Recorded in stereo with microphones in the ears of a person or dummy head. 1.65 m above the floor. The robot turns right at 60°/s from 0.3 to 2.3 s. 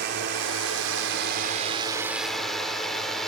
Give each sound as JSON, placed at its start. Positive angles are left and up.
{"t": 0.0, "sound": "a drone", "side_deg": -60}